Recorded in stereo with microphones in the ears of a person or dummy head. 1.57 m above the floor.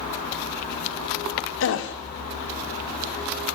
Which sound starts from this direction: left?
A gasp, at 1.6 s.